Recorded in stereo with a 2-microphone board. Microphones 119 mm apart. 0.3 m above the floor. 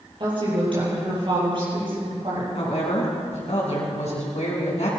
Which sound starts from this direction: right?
A woman speaking, at 0.2 s.